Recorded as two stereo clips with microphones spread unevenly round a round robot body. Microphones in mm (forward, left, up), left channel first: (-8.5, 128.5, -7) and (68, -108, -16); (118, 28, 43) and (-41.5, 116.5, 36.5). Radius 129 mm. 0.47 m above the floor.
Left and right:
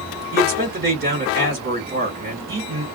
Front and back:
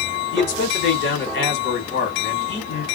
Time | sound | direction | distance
0.3 | a man speaking | 30° right | 1.7 m